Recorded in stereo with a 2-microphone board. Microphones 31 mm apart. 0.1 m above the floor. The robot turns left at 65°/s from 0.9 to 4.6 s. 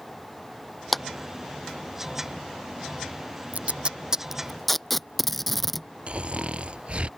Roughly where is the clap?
Centre.